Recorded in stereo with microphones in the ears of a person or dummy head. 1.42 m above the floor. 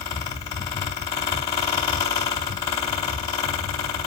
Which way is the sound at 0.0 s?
25° left (ahead or behind).